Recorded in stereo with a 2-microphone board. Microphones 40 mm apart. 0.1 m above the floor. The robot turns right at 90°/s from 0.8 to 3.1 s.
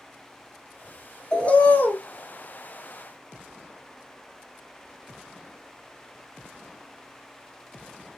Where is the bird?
30° left, 0.5 m; by 2.0 s 90° left, 0.5 m.